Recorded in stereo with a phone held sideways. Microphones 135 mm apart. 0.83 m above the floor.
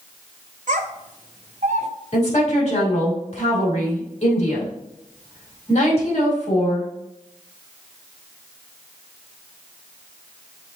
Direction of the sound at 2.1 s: 55° left (ahead or behind).